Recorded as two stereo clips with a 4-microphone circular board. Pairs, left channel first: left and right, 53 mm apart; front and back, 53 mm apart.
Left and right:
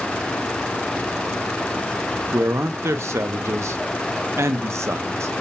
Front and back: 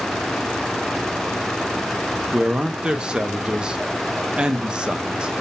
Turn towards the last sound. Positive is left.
turn(degrees=-110)